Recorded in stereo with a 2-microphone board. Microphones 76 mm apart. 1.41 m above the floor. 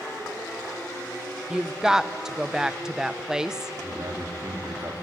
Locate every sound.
1.5 s a woman speaking: 10° right (ahead or behind), 0.7 m
3.8 s a man speaking: 50° right (ahead or behind), 3.5 m